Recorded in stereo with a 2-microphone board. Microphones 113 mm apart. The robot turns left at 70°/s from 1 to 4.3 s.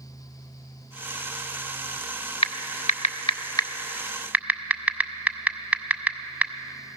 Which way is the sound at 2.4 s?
60° left (ahead or behind).